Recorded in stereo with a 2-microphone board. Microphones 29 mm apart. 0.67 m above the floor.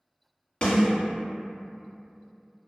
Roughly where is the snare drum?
Left.